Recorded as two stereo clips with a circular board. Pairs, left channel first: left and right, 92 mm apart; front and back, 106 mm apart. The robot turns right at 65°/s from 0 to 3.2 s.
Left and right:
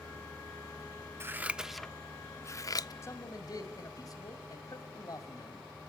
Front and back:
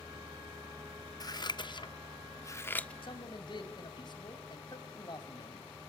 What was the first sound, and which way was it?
Scissors, 35° right.